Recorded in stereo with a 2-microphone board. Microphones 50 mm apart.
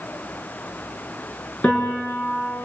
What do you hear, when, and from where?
1.6 s a piano: 25° left (ahead or behind), 7 m